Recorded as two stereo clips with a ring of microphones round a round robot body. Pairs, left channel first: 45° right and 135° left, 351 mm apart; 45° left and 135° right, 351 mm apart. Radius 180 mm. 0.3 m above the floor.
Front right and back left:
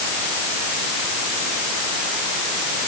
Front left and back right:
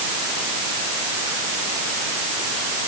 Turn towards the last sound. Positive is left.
No sound to turn to.